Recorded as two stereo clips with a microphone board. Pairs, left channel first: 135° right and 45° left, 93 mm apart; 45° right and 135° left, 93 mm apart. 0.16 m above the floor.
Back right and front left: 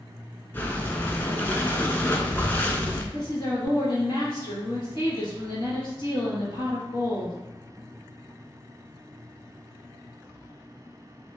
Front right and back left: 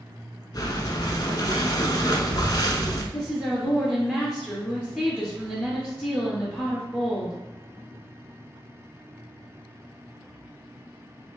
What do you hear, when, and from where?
0.5 s breathing: 70° right, 0.8 m
3.1 s a woman speaking: 120° right, 1.9 m